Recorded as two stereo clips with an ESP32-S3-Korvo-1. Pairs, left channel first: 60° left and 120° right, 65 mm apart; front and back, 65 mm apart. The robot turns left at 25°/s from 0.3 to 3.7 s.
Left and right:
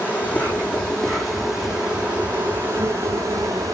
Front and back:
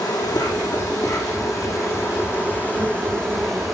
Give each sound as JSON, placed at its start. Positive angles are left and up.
{"t": 0.0, "sound": "an insect", "azimuth_deg": -5, "distance_m": 3.5}